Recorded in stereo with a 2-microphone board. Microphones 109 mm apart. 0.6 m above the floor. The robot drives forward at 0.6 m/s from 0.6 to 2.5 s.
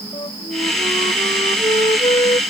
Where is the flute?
50° left (ahead or behind); by 2.4 s 55° left (ahead or behind).